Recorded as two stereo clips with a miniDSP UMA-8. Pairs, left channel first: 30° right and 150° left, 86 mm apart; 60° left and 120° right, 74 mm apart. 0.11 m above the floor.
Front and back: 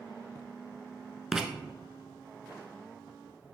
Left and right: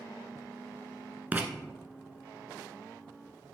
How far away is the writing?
About 0.6 m.